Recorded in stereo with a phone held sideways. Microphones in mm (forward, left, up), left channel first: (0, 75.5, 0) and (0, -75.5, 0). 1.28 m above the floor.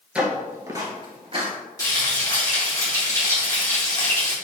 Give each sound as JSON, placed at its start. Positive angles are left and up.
{"t": 0.1, "sound": "footsteps", "side_deg": -5, "distance_m": 1.4}
{"t": 1.8, "sound": "frying", "side_deg": 25, "distance_m": 1.9}